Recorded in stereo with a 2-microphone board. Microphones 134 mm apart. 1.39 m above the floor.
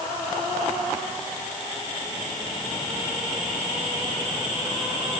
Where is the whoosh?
I don't hear a whoosh.